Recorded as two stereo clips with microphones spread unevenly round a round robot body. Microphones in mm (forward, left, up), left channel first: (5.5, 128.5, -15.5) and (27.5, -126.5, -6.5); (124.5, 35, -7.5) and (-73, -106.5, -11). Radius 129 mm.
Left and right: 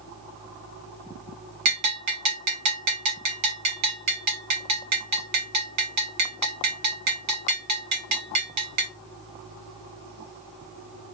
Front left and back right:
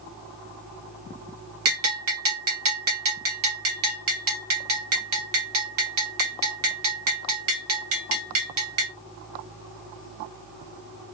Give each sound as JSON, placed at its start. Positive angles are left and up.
{"t": 1.6, "sound": "a bell", "azimuth_deg": -115, "distance_m": 0.8}